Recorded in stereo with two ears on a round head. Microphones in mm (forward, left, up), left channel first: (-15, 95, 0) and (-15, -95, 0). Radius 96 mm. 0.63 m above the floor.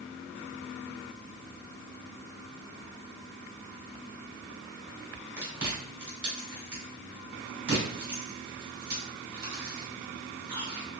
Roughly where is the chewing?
Right.